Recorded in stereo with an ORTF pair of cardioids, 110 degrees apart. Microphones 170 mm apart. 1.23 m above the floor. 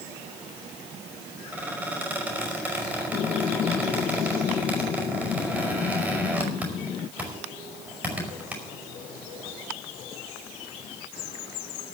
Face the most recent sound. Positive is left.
turn(degrees=-5)